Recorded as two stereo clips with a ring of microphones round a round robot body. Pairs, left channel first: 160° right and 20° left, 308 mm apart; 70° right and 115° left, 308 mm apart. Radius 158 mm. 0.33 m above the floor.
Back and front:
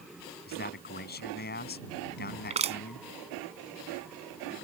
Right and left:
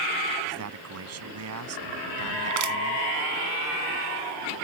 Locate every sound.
0.5 s a man speaking: 145° left
2.5 s crushing: 90° left